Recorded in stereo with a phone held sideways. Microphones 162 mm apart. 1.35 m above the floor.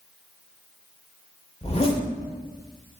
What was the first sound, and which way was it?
A zipper, 40° left (ahead or behind).